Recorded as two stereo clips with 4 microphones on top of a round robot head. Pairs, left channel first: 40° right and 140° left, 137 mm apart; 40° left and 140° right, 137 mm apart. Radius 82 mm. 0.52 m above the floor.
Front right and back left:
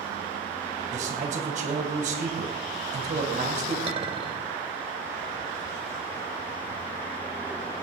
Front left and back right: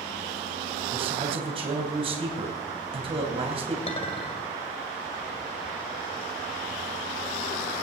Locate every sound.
0.9 s a man speaking: 175° left, 2.5 m
3.9 s a clink: 90° left, 2 m